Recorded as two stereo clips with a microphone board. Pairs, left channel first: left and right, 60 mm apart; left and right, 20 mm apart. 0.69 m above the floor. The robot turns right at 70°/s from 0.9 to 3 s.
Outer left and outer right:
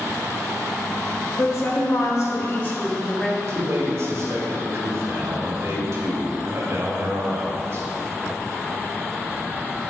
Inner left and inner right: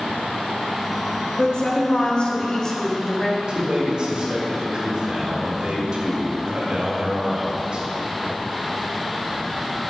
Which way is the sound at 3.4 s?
50° right (ahead or behind).